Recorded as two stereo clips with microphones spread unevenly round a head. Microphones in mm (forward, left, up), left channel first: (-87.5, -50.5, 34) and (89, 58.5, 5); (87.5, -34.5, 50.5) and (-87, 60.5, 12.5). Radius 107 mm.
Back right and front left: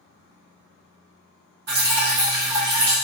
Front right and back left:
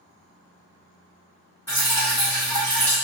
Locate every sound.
1.7 s dripping: 50° left, 1.7 m